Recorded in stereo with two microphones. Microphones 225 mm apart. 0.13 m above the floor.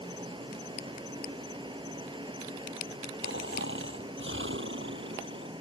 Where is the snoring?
60° right (ahead or behind).